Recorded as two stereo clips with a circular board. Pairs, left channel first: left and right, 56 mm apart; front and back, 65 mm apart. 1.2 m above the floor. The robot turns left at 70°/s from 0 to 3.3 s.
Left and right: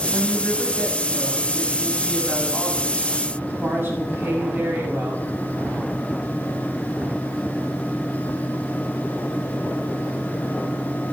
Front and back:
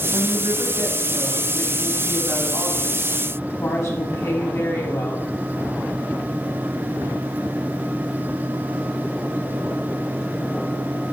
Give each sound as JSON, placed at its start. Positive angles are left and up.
{"t": 0.1, "sound": "a woman speaking", "azimuth_deg": 180, "distance_m": 7.5}